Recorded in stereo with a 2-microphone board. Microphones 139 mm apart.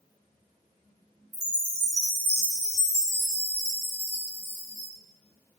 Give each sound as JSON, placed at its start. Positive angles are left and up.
{"t": 1.3, "sound": "a chime", "side_deg": -20, "distance_m": 0.8}